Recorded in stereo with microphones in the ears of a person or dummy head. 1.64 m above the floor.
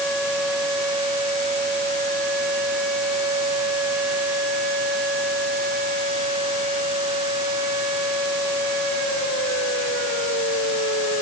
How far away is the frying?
No frying in this recording.